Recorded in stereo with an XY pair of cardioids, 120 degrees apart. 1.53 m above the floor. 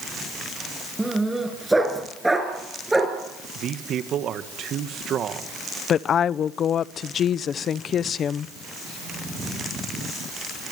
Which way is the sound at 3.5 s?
55° right.